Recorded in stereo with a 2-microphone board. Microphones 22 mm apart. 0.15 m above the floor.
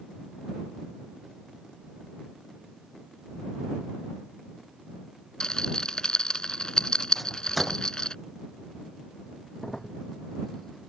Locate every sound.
5.4 s a rattle: 35° left (ahead or behind)
7.2 s a microwave: 5° left (ahead or behind)
9.6 s a crack: 20° left (ahead or behind)